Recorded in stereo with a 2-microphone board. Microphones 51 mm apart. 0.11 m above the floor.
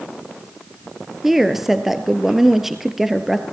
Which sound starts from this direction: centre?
A woman speaking, at 1.2 s.